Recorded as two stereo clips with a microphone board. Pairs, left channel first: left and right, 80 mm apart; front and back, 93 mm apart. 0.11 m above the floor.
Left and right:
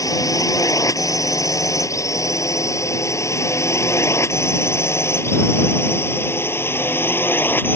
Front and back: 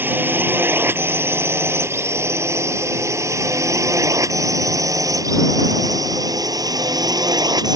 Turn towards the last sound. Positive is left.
turn(degrees=150)